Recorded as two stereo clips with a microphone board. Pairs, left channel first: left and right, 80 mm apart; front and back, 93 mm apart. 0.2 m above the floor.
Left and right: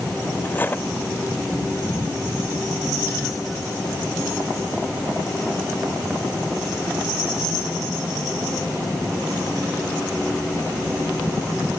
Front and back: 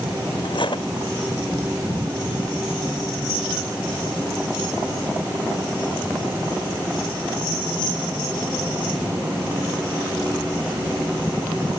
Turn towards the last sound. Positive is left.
turn(degrees=25)